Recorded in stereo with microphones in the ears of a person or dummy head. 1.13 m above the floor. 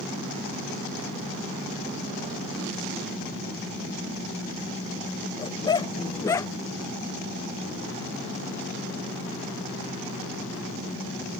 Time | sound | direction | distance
5.4 | a dog barking | 25° left (ahead or behind) | ?